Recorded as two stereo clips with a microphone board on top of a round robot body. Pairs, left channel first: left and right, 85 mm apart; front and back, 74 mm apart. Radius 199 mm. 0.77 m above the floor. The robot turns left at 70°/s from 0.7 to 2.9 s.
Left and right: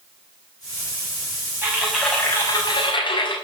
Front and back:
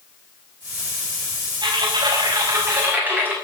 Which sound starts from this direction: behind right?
Typing on a keyboard, at 1.6 s.